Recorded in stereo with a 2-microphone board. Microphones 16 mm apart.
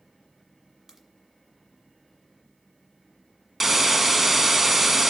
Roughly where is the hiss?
Centre.